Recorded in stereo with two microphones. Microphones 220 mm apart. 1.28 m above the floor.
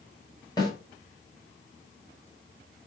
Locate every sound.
0.6 s a snare drum: 15° left (ahead or behind), 7.5 m